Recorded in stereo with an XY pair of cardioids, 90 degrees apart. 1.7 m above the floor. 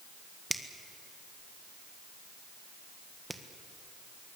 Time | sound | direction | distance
0.5 | a finger snap | 10° right | 1.7 m